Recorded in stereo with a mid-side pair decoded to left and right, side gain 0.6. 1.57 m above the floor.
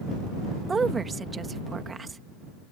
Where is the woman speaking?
25° right.